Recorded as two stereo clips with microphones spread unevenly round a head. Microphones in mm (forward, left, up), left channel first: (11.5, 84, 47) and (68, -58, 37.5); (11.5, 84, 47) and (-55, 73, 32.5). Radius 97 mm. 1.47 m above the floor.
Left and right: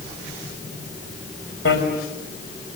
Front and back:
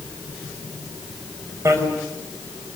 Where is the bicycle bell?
145° left, 5.5 m.